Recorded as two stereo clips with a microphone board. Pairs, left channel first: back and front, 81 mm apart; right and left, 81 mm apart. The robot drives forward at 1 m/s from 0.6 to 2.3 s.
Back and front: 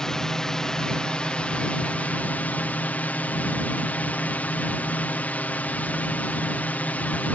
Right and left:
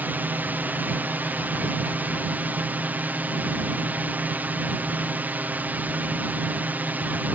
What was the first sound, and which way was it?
A drone, 110° left.